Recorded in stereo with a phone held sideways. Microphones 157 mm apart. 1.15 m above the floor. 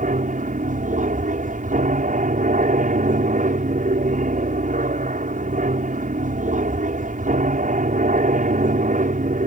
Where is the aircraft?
55° right (ahead or behind).